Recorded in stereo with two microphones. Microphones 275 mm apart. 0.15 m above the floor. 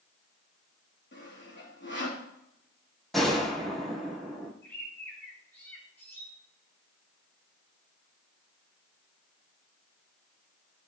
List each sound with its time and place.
1.1 s sawing: 40° left (ahead or behind), 3 m
3.1 s a gunshot: centre (ahead or behind), 2.5 m
4.6 s a bird: 10° left (ahead or behind), 4 m